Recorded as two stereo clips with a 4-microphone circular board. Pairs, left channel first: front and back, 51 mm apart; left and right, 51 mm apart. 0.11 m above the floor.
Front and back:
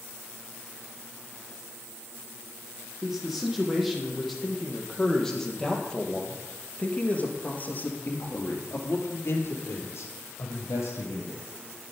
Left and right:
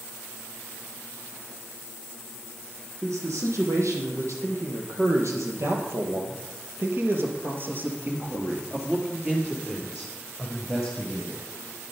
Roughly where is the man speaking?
Right.